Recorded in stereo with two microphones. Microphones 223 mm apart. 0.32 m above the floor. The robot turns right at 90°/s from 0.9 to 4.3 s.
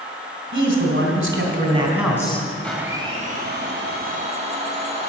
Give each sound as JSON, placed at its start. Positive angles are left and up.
{"t": 0.5, "sound": "a man speaking", "azimuth_deg": -105, "distance_m": 3.0}
{"t": 2.6, "sound": "a blender", "azimuth_deg": 170, "distance_m": 2.5}